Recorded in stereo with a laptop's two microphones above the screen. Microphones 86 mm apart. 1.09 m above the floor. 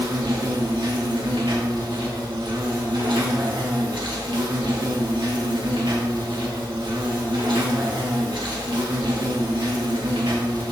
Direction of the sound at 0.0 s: 70° right (ahead or behind).